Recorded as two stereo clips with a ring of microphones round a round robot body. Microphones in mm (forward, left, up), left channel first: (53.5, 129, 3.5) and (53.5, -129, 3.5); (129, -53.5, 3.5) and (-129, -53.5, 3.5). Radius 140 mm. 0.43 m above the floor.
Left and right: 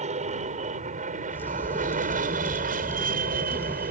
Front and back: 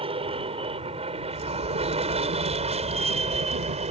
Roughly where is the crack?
Behind.